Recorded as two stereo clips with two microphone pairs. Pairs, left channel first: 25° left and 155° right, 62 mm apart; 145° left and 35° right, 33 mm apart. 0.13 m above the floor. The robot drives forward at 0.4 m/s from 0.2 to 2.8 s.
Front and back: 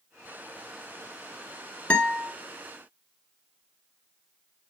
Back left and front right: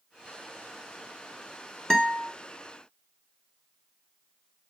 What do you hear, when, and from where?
1.9 s a guitar: 80° left, 1.4 m; by 2.3 s 90° left, 1.4 m